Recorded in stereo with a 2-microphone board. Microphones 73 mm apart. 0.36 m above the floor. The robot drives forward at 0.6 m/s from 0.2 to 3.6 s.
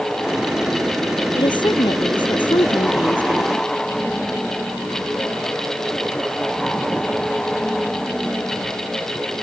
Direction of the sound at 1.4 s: 85° left.